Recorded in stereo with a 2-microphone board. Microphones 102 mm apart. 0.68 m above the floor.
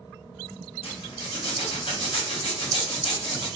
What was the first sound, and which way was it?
A zipper, 65° left (ahead or behind).